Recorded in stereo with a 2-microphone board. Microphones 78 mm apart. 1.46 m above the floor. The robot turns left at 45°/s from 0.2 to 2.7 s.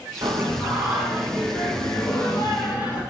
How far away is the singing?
About 3.5 m.